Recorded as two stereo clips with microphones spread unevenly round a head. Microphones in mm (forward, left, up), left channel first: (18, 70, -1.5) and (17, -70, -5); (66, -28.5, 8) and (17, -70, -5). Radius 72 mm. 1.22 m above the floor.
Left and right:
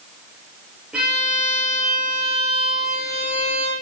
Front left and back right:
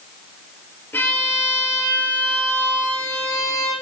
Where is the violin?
10° right, 4 m.